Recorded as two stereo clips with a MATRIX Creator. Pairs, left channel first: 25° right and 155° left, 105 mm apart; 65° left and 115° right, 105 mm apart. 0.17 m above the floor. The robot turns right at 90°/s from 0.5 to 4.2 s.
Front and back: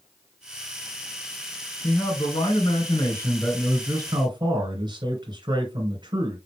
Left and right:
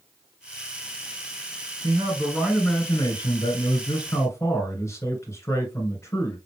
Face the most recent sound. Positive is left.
turn(degrees=125)